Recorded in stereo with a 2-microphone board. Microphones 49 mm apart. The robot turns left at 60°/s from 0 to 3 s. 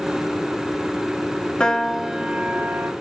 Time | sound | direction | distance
1.6 | a piano | 20° left | 0.5 m